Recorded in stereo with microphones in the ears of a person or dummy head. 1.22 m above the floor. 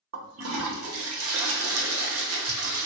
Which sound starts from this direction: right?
A toilet flushing, at 0.1 s.